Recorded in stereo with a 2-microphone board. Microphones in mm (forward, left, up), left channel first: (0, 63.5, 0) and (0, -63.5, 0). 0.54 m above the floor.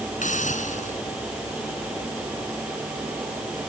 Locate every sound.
0.2 s a hiss: 80° left